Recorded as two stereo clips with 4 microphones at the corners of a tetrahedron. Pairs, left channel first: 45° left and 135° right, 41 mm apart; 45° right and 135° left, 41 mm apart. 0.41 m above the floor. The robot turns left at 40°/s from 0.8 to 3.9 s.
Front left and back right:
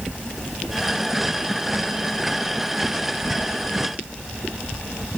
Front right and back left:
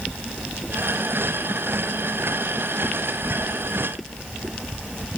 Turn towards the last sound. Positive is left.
No sound to turn to.